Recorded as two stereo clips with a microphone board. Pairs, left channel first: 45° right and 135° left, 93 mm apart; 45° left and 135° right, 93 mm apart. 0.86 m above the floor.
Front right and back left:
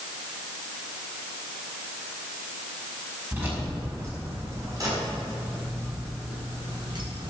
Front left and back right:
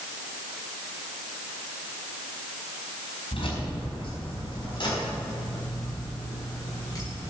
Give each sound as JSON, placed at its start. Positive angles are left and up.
{"t": 3.3, "sound": "keys jangling", "azimuth_deg": 65, "distance_m": 5.0}